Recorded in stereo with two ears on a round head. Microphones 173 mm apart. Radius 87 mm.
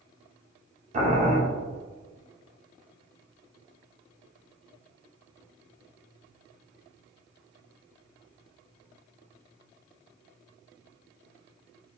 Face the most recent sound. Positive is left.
turn(degrees=-35)  # may be behind; listen again after turning